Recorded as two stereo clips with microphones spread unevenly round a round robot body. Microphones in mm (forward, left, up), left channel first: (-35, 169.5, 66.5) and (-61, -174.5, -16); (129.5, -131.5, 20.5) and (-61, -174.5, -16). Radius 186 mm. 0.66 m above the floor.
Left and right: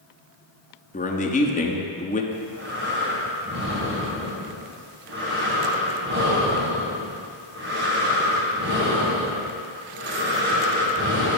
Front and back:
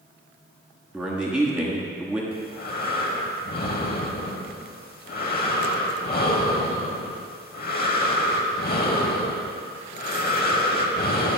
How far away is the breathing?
About 1.5 m.